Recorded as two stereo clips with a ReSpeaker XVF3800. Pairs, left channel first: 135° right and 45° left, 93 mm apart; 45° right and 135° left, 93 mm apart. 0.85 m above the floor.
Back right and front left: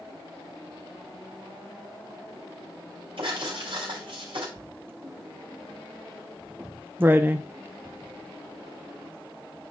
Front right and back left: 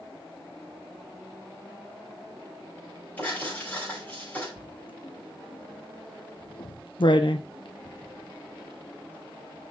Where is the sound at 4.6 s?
20° right, 0.7 m.